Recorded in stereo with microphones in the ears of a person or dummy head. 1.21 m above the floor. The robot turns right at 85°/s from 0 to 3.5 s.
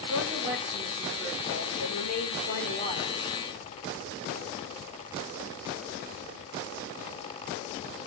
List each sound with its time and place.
0.1 s a woman speaking: 90° right, 3.5 m; by 3.2 s 175° left, 3.5 m